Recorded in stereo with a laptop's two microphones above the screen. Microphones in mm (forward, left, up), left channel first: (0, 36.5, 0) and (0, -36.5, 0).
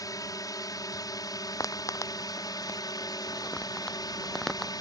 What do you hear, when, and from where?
0.0 s a drone: 55° left (ahead or behind); by 4.8 s 60° left (ahead or behind)
1.6 s footsteps: 50° left (ahead or behind); by 4.7 s centre (ahead or behind)